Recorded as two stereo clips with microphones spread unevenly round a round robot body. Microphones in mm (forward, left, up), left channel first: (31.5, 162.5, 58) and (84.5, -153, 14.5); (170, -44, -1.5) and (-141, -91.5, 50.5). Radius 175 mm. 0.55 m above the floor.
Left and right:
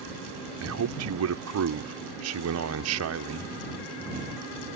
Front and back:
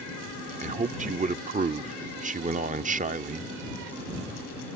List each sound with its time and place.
0.6 s a man speaking: 100° right